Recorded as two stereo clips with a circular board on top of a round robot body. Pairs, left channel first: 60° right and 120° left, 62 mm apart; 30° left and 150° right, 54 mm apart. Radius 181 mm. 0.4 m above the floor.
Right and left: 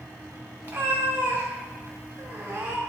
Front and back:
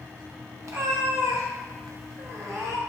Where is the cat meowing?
175° right, 1.4 m.